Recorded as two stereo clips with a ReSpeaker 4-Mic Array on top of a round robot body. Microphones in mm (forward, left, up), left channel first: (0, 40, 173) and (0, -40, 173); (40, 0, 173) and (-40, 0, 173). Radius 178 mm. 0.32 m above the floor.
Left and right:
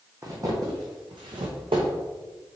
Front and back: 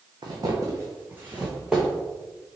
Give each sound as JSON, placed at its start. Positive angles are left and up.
{"t": 0.2, "sound": "footsteps", "azimuth_deg": -145, "distance_m": 1.3}